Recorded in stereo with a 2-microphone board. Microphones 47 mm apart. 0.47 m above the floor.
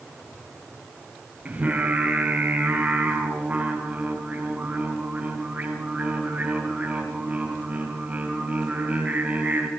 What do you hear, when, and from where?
1.4 s singing: 30° right (ahead or behind), 4.5 m